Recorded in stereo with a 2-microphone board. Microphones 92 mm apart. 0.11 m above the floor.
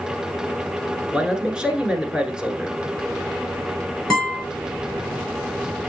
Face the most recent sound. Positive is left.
turn(degrees=5)  # may be behind; listen again after turning